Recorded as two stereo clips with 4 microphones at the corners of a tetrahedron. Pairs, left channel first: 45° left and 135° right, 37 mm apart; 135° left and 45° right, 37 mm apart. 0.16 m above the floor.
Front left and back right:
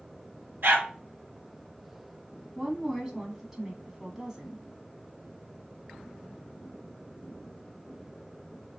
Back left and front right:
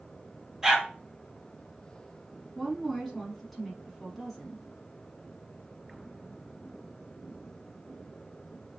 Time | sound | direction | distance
0.6 | a dog barking | 125° right | 1.5 m
2.5 | a woman speaking | 145° right | 1.1 m